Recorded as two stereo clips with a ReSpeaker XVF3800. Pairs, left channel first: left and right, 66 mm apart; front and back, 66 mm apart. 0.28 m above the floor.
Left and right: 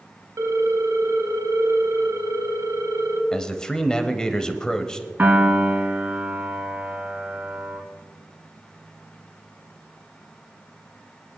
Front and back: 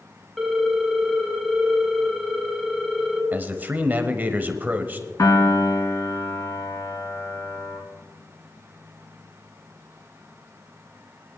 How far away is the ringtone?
About 1.1 m.